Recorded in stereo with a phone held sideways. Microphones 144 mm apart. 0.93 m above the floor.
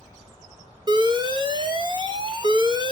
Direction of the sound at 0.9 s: 35° right (ahead or behind).